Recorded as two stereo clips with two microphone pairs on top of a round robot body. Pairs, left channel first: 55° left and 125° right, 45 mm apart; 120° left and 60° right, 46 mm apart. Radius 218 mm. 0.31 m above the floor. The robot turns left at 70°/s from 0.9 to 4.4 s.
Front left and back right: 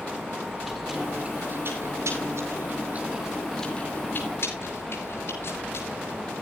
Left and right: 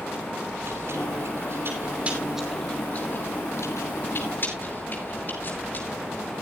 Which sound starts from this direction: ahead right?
Chewing, at 0.4 s.